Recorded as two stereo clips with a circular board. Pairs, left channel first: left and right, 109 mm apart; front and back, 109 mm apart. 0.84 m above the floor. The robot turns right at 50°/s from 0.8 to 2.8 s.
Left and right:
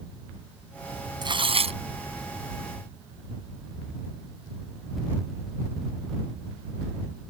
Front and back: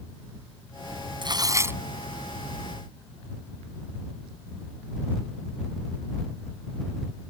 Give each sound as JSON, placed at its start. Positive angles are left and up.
{"t": 1.2, "sound": "tearing paper", "azimuth_deg": -135}